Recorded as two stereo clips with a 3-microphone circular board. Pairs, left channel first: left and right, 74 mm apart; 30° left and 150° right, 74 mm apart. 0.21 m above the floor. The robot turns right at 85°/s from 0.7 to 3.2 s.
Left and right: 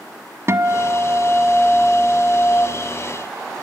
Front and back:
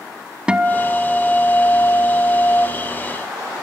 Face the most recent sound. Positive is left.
turn(degrees=130)